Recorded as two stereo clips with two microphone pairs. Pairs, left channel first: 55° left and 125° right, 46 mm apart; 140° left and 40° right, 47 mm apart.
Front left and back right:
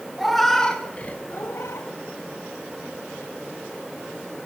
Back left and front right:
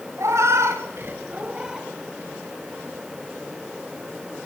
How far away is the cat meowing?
About 1.2 m.